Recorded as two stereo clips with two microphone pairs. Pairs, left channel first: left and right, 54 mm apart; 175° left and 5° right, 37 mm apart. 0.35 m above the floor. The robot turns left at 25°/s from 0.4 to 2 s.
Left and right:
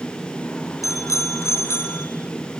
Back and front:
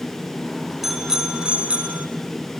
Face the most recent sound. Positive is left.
turn(degrees=45)